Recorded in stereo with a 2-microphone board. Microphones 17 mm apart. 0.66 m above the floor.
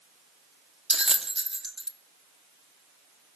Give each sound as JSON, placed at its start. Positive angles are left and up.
{"t": 0.9, "sound": "a bell", "side_deg": -50, "distance_m": 0.9}